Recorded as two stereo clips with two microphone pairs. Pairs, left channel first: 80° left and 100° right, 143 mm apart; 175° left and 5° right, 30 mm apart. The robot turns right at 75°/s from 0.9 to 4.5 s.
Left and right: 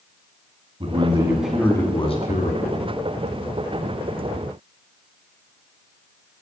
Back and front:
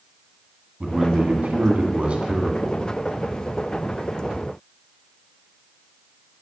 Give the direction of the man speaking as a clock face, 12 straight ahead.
2 o'clock.